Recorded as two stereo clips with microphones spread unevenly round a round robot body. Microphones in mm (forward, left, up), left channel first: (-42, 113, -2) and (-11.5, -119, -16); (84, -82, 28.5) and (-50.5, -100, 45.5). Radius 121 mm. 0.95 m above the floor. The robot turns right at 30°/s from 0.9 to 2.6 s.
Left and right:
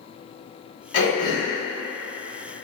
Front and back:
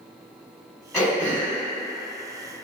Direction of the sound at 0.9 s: 100° left.